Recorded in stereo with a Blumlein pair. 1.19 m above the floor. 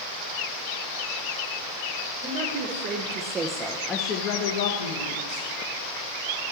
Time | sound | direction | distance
2.2 | a woman speaking | 55° right | 1.0 m